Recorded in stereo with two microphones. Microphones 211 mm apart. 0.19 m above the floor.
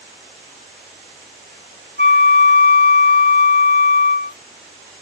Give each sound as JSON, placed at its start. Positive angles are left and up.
{"t": 2.0, "sound": "a flute", "side_deg": 45, "distance_m": 0.7}